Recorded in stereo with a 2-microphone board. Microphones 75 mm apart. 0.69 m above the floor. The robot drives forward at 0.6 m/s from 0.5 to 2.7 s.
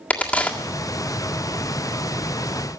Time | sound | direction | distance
0.1 | a crack | 20° left (ahead or behind) | 1.8 m